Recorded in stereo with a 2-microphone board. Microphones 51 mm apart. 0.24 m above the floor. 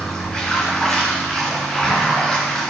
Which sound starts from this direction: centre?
Running water, at 0.0 s.